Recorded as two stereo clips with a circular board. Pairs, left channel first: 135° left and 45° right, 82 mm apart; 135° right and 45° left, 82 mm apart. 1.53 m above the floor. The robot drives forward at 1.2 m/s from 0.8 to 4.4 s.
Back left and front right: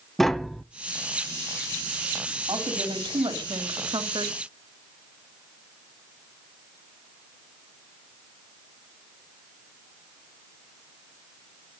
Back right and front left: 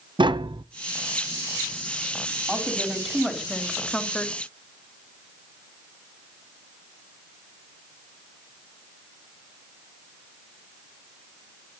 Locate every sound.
0.2 s tapping: 50° left, 0.8 m
2.5 s a woman speaking: 35° right, 5 m; by 4.3 s 60° right, 3.5 m